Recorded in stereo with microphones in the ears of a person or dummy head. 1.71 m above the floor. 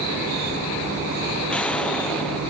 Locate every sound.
1.5 s an explosion: 5° left (ahead or behind), 0.6 m